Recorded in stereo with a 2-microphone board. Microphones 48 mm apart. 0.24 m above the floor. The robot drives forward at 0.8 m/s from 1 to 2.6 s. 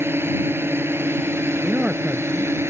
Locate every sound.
0.0 s a drone: 55° right (ahead or behind); by 2.7 s 60° right (ahead or behind)
1.6 s a man speaking: 25° right (ahead or behind); by 2.5 s 20° right (ahead or behind)